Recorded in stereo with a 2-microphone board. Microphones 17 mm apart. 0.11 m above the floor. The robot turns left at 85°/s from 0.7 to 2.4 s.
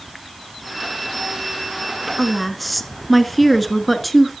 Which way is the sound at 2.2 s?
5° right (ahead or behind).